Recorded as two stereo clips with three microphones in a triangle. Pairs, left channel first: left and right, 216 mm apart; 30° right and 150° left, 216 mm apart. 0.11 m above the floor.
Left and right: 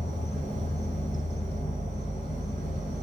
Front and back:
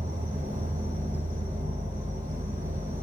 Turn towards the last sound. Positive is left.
turn(degrees=115)